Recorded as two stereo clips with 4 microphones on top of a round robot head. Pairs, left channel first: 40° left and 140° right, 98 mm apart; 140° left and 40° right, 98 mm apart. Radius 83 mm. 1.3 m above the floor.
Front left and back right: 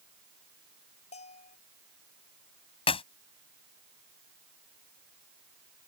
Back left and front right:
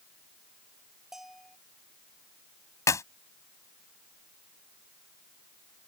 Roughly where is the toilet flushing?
I don't hear a toilet flushing.